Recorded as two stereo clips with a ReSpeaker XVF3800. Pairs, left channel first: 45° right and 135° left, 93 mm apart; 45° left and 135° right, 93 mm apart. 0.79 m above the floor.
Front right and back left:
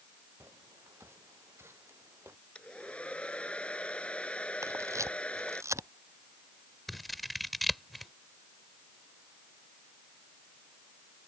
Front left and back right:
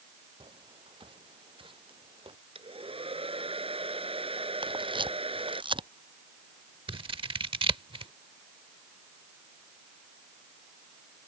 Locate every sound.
0.4 s footsteps: 160° right
2.5 s a hair dryer: 125° right
4.6 s a camera shutter: 165° right
6.9 s scissors: 135° right